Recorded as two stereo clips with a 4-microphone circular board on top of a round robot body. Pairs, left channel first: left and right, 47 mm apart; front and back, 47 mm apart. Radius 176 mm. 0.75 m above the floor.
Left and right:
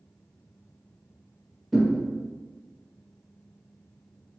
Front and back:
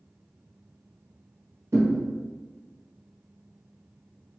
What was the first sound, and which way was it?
A thud, 175° left.